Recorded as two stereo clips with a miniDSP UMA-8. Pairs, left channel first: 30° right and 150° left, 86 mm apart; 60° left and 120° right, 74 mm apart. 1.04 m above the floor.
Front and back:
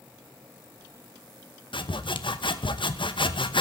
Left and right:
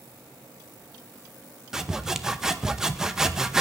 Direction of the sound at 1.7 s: 35° right.